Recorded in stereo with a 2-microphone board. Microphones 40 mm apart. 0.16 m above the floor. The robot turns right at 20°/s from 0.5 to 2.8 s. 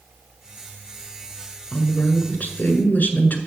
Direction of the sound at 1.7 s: 35° left (ahead or behind).